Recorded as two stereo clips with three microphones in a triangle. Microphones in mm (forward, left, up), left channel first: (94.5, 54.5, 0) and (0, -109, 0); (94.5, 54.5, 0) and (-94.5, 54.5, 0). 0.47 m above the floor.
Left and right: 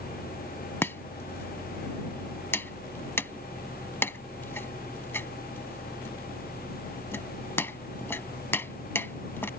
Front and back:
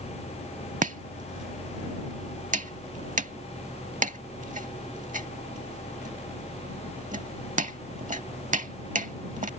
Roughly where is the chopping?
Behind left.